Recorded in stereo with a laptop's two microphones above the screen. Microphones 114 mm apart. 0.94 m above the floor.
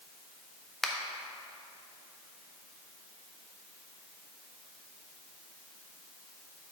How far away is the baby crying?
I don't hear a baby crying.